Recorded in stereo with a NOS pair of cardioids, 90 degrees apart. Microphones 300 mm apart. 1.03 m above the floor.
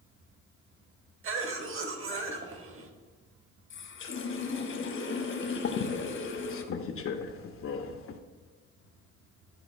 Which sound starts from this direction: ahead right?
A cough, at 1.2 s.